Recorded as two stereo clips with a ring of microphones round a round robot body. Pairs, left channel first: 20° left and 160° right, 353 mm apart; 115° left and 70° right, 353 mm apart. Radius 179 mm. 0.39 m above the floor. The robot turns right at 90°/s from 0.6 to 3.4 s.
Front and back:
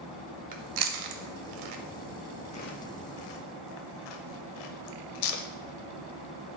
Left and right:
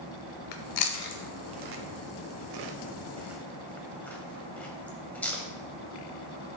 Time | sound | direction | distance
0.5 | chewing | 135° left | 0.7 m